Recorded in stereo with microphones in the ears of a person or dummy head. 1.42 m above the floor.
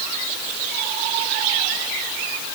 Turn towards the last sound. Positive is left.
No sound to turn to.